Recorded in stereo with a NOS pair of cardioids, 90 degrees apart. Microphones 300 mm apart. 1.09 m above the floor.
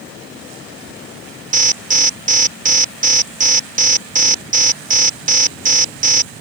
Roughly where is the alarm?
Ahead right.